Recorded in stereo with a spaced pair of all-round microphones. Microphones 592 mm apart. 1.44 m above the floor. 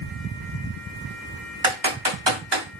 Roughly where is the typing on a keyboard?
Right.